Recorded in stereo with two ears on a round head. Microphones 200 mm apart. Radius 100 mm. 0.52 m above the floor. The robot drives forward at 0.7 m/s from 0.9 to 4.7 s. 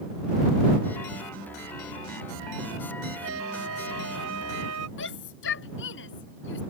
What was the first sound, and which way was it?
A flute, 70° right (ahead or behind).